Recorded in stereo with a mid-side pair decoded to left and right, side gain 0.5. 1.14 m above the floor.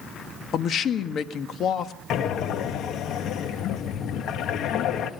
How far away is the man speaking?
About 1.6 m.